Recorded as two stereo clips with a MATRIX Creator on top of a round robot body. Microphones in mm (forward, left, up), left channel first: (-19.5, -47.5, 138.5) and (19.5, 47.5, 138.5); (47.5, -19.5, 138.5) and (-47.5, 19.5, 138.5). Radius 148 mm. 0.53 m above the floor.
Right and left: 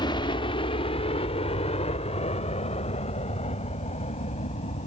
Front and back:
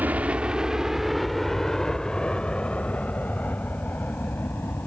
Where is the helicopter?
130° right; by 4.9 s 95° right.